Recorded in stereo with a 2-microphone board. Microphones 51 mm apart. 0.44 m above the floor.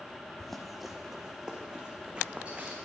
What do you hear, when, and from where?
0.4 s running footsteps: 5° left (ahead or behind), 1.4 m; by 2.7 s 20° right (ahead or behind), 2.5 m